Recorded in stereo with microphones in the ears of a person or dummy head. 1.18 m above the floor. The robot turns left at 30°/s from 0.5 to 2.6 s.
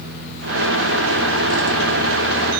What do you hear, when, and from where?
Only background noise.